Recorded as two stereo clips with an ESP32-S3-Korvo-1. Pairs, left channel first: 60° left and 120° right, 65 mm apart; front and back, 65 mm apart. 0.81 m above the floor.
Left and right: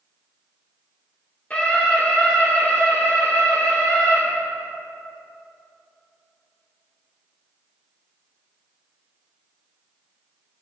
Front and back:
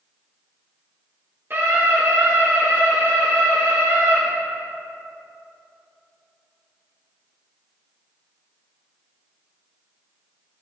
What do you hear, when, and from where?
1.5 s a scream: 125° left, 2 m; by 4.2 s 120° left, 3.5 m